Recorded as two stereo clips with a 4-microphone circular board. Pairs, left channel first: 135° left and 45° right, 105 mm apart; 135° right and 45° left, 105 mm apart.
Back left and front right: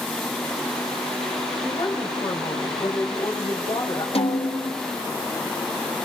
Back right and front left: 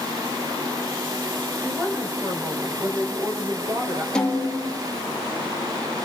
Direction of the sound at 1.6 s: 100° left.